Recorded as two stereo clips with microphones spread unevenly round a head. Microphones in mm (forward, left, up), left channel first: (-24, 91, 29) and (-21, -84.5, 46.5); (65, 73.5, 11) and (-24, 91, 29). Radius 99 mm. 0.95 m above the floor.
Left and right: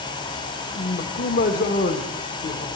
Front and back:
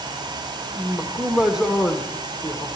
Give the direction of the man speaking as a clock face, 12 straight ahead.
9 o'clock.